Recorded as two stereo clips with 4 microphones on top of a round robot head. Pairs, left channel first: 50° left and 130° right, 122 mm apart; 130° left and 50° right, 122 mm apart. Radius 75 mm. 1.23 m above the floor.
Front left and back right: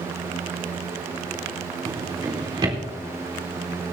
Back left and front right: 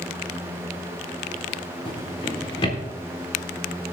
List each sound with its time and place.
1.9 s a drawer: 175° left, 3.5 m